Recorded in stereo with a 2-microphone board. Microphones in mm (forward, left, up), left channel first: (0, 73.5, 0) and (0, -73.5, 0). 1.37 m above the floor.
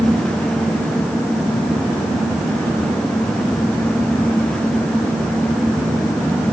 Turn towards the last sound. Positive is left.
No sound to turn to.